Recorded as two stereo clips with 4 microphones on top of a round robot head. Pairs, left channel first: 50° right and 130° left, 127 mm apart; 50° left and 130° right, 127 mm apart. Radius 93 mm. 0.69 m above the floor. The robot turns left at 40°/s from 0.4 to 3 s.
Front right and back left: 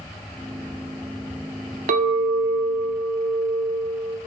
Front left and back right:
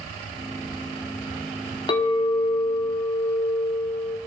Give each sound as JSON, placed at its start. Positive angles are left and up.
{"t": 1.9, "sound": "a clink", "azimuth_deg": 105, "distance_m": 0.5}